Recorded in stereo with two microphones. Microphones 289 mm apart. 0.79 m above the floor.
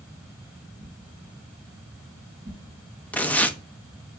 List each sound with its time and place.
0.8 s a whoosh: 45° right (ahead or behind), 4.5 m
3.1 s tearing paper: 5° left (ahead or behind), 0.8 m